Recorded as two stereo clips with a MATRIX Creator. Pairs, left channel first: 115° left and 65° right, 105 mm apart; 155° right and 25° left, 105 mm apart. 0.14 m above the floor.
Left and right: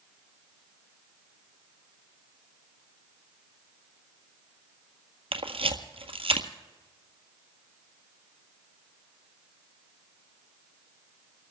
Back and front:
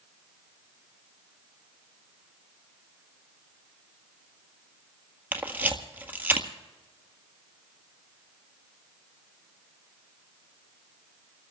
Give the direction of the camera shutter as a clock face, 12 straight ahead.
2 o'clock.